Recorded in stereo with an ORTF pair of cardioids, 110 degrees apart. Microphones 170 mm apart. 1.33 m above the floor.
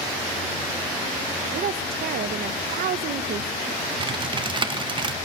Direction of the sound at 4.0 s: 30° right.